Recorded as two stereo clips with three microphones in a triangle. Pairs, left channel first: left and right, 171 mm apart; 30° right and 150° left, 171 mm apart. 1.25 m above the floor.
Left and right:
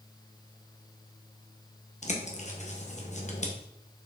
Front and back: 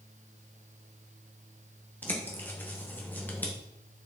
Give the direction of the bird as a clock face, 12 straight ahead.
10 o'clock.